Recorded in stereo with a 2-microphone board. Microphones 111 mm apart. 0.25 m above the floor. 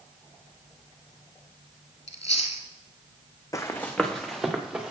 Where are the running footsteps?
30° left (ahead or behind), 0.9 m; by 4.9 s 5° right (ahead or behind), 2 m.